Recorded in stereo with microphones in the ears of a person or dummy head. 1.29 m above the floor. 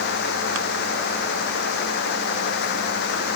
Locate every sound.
Only background noise.